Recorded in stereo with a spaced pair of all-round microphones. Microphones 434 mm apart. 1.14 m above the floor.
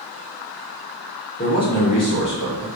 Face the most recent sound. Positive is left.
turn(degrees=40)  # may be behind; listen again after turning